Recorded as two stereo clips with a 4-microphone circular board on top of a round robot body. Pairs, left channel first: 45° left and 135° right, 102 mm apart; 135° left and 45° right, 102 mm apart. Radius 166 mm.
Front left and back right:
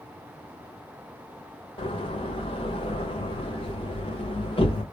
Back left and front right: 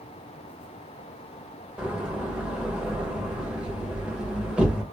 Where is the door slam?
35° left, 1.5 m.